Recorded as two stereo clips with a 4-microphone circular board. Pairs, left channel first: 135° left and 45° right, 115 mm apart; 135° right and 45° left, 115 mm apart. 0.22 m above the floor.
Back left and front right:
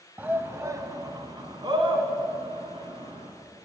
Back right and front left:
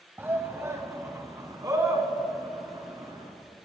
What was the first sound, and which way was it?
A shout, 5° left.